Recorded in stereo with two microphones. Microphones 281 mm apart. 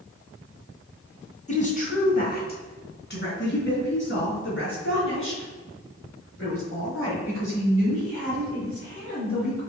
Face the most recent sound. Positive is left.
turn(degrees=50)  # may be behind; listen again after turning